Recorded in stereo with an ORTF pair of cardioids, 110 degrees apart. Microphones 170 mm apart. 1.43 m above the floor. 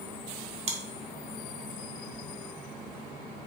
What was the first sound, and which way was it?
Chewing, 40° right.